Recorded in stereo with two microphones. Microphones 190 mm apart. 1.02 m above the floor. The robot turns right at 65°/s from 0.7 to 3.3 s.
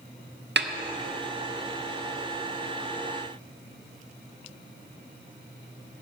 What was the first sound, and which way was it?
A snare drum, 60° right (ahead or behind).